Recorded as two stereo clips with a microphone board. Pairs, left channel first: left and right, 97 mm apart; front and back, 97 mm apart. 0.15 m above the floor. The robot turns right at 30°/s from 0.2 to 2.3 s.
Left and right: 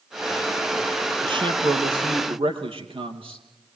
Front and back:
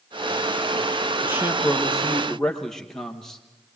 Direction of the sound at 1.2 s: 115° right.